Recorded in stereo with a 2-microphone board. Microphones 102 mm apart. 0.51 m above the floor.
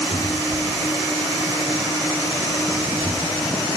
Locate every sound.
0.1 s a cupboard door: 75° left (ahead or behind), 5 m